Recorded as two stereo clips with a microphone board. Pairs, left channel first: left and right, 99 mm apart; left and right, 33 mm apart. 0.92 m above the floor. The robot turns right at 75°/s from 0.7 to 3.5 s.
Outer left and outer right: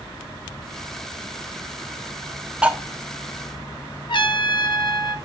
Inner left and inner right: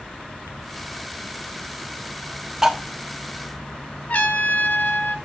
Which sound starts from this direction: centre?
Cutlery clinking, at 2.6 s.